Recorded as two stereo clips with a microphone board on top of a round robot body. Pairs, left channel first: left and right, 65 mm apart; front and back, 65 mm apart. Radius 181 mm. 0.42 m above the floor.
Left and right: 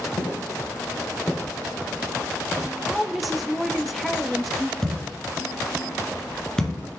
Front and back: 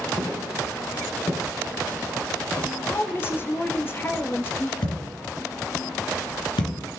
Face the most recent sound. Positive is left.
turn(degrees=10)